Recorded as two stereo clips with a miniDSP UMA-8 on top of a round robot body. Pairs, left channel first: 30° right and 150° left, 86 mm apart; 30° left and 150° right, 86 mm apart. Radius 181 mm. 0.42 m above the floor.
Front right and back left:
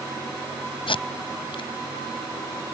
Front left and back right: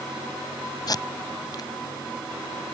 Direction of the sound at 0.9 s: 15° right.